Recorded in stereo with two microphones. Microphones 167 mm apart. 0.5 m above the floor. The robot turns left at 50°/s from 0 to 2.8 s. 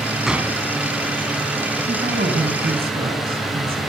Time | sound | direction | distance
0.3 | a gunshot | 5° right (ahead or behind) | 1.3 m
1.9 | a woman speaking | 65° right | 3.5 m